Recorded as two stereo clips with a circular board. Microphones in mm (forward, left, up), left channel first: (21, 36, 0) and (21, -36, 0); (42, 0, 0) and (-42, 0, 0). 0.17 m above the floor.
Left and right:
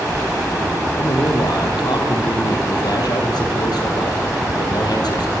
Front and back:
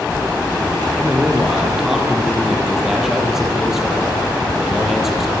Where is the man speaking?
95° left, 5.5 m.